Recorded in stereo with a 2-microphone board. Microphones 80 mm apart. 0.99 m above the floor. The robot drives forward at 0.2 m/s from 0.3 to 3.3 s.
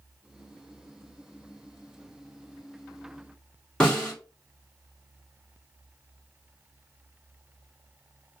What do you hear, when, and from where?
3.8 s a snare drum: 10° left (ahead or behind), 1.3 m